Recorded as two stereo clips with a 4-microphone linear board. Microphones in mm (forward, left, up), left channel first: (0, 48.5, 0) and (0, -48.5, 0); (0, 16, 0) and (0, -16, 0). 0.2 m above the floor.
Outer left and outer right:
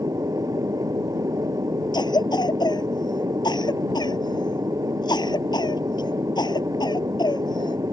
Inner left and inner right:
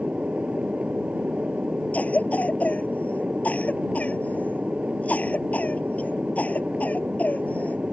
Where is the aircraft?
35° right (ahead or behind).